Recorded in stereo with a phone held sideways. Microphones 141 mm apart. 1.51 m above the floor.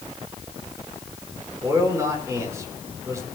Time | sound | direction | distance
1.6 | a man speaking | 20° right (ahead or behind) | 6 m